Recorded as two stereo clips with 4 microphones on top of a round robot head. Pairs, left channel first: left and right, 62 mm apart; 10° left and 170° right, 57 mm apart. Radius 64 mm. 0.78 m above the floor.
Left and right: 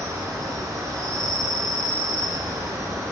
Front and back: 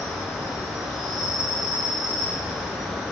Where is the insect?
85° right, 1.2 m.